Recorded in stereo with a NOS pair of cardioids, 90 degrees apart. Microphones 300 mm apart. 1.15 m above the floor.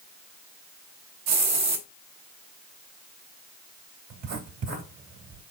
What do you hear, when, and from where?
1.3 s a hiss: 60° right, 1.3 m
4.1 s writing: 60° right, 3 m